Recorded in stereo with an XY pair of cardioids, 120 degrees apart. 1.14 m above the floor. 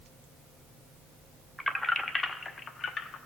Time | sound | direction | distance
1.6 | keys jangling | 5° left | 1.1 m